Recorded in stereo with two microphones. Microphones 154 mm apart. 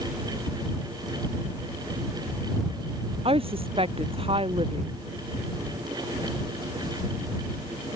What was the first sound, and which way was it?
A woman speaking, 40° right (ahead or behind).